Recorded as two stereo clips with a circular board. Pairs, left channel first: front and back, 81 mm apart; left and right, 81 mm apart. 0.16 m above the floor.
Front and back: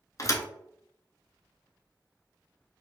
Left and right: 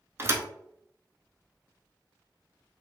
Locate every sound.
0.2 s a thud: 35° right, 0.5 m